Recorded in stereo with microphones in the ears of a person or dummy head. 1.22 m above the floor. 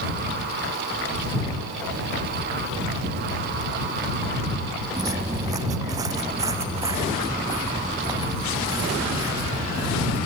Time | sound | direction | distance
5.0 | footsteps | 20° right (ahead or behind) | ?